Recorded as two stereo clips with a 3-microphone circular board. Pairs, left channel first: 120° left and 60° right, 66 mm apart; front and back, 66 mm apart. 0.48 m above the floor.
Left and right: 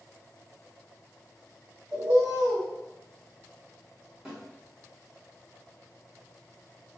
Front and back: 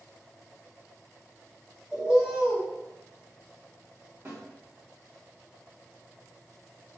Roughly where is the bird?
Right.